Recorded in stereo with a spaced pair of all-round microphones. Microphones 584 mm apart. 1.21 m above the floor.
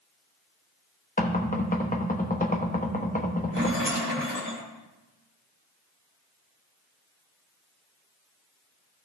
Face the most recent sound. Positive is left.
turn(degrees=-20)  # may be behind; listen again after turning